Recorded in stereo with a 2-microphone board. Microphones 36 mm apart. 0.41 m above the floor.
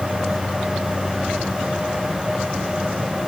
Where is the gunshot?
I don't hear a gunshot.